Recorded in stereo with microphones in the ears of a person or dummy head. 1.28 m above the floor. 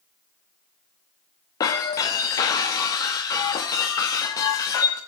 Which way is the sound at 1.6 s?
20° left (ahead or behind).